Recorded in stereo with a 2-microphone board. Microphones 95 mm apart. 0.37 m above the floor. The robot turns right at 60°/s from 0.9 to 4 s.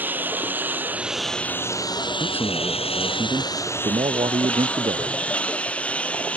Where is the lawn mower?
20° right; by 6.4 s 170° left.